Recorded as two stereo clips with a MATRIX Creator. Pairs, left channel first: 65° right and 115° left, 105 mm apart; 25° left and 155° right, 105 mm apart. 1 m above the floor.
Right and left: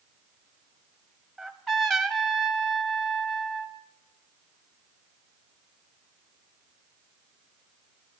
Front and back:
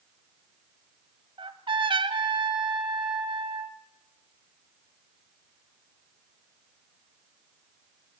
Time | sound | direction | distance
1.4 | a trumpet | 155° right | 0.9 m